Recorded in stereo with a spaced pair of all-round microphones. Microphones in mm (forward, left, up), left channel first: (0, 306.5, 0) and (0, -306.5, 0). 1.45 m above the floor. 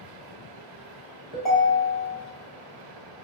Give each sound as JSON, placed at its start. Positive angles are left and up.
{"t": 1.3, "sound": "a ringtone", "side_deg": 50, "distance_m": 1.0}